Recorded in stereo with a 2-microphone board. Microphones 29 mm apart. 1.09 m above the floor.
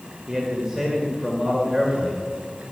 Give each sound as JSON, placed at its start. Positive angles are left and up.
{"t": 0.3, "sound": "a man speaking", "side_deg": -25, "distance_m": 1.5}